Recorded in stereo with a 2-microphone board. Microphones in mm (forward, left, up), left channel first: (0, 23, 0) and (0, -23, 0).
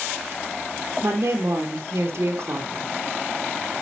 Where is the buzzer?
No buzzer in this recording.